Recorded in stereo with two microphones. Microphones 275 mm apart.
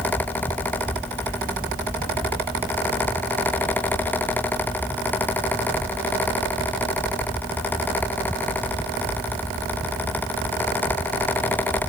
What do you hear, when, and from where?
Only background noise.